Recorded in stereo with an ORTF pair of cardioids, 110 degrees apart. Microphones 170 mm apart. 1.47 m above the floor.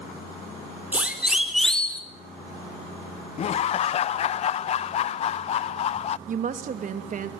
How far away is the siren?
About 3.5 m.